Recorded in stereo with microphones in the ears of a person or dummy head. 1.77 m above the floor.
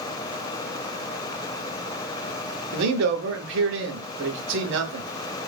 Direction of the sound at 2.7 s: 70° right (ahead or behind).